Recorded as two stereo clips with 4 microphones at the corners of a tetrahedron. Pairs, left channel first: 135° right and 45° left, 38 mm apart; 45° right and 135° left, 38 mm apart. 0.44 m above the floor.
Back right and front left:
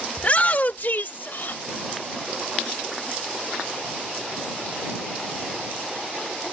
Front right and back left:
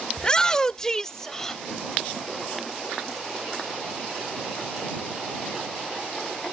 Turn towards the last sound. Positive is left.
turn(degrees=-125)